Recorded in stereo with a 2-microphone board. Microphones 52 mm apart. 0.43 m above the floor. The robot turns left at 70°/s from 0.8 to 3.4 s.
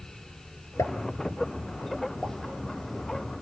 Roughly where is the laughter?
I don't hear laughter.